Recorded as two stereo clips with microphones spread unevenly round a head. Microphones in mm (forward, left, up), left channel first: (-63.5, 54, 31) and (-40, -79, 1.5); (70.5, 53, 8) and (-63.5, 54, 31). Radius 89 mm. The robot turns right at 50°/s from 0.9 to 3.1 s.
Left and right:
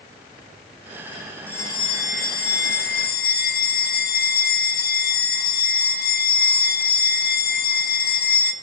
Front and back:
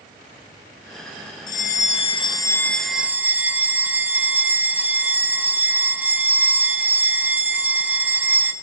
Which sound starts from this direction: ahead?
A bell, at 1.5 s.